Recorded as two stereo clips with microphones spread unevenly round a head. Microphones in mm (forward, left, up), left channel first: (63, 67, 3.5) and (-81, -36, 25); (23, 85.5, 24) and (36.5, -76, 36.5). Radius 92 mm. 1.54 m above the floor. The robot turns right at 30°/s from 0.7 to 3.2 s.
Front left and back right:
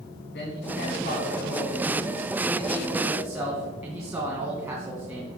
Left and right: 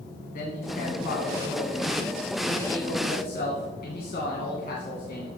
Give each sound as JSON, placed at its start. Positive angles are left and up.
{"t": 0.3, "sound": "a man speaking", "azimuth_deg": 70, "distance_m": 2.5}